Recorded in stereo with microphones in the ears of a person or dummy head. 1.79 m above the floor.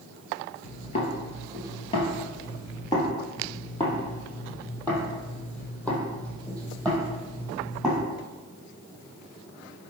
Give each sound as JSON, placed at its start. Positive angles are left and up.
{"t": 0.6, "sound": "footsteps", "side_deg": 40, "distance_m": 2.5}